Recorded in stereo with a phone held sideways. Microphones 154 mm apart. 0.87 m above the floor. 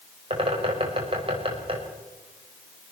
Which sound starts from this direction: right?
A bird, at 0.3 s.